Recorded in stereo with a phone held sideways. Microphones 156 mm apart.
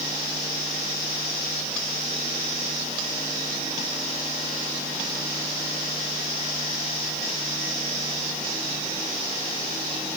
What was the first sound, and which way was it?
Only background noise.